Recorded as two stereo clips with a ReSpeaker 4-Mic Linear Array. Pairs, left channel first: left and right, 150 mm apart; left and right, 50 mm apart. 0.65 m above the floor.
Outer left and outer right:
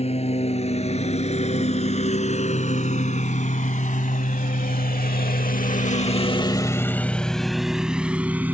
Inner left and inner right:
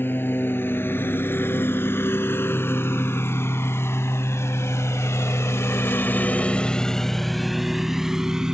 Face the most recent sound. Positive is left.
turn(degrees=-10)  # may be behind; listen again after turning